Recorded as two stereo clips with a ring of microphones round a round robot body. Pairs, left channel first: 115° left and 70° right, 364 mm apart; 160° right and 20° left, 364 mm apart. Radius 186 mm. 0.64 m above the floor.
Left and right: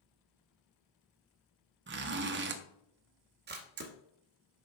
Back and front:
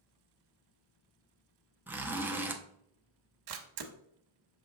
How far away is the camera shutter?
About 1.0 m.